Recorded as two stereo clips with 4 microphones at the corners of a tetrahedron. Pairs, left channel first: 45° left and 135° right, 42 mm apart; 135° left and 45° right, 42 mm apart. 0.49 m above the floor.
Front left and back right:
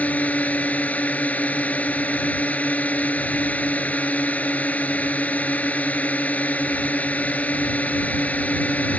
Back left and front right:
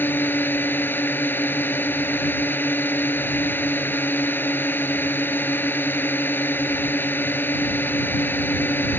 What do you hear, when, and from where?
0.0 s a drone: 95° left